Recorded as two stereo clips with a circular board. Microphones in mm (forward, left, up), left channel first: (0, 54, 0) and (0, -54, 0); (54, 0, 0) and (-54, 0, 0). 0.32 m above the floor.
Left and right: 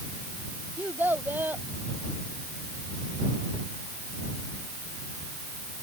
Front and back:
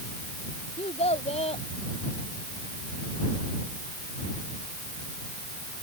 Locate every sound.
0.8 s a child speaking: 15° right